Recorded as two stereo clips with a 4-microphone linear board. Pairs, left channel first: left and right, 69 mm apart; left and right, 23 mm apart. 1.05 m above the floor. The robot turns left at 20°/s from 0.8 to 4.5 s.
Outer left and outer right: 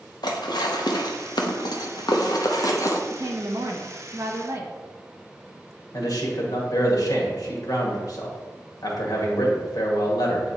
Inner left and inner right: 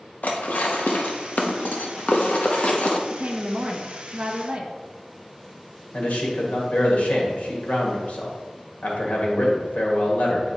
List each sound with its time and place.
0.2 s dishes clattering: 85° left, 0.8 m; by 3.0 s 50° left (ahead or behind), 0.8 m
3.1 s a woman speaking: 65° right (ahead or behind), 1.0 m; by 4.8 s 40° right (ahead or behind), 1.0 m
5.9 s a man speaking: 65° left (ahead or behind), 1.8 m